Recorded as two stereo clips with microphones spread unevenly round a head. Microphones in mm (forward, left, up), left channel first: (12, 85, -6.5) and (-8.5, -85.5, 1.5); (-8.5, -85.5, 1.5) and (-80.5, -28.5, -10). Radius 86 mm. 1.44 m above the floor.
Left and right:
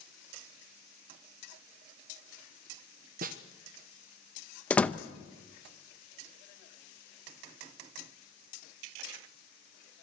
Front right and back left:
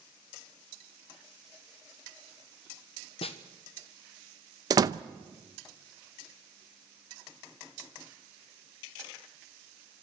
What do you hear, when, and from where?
3.2 s a snare drum: 55° right, 1.2 m
4.7 s a door slam: 165° left, 0.7 m